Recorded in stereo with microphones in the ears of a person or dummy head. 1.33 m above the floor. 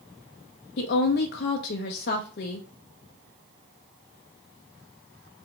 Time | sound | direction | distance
0.8 | a woman speaking | 55° left (ahead or behind) | 0.6 m